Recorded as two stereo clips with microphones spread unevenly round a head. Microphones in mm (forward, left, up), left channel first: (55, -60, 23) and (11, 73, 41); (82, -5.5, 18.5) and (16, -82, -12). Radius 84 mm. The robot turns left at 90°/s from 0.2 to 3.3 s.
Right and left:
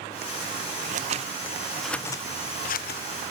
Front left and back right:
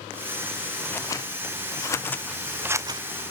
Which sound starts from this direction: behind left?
Scissors, at 0.8 s.